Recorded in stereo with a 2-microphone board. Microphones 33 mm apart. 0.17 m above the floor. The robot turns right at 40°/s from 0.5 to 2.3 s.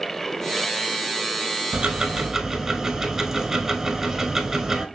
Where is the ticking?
30° right (ahead or behind), 0.6 m; by 4.9 s 10° right (ahead or behind), 0.6 m.